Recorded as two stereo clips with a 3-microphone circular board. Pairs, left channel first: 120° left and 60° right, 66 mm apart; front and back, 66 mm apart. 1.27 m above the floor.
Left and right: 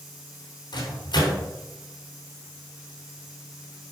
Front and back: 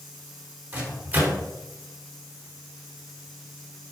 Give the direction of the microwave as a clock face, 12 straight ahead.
8 o'clock.